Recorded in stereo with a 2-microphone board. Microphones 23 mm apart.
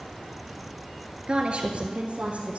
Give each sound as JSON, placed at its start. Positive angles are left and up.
{"t": 1.3, "sound": "a woman speaking", "side_deg": -45, "distance_m": 1.4}